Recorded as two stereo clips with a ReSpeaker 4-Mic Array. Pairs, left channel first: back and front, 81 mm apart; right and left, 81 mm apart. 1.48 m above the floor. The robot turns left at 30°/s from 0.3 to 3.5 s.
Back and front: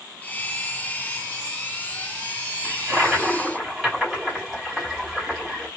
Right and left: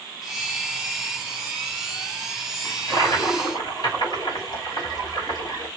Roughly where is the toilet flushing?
Ahead right.